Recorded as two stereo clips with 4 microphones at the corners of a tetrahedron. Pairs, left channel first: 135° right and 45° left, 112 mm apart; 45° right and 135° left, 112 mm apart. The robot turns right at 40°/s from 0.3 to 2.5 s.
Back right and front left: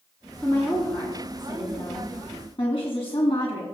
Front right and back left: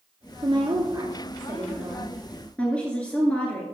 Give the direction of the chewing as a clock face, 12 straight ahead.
No chewing in this recording.